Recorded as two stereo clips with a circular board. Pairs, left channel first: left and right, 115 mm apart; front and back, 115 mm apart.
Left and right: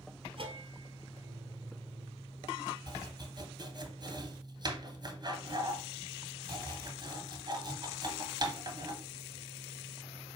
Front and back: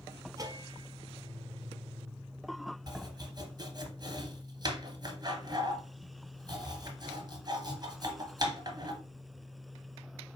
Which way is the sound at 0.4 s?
125° right.